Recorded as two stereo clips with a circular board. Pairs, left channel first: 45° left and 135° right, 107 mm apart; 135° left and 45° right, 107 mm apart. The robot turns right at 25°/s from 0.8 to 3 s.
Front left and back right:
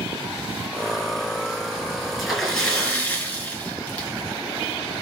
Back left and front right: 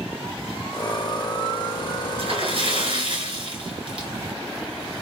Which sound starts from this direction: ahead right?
A splash, at 2.2 s.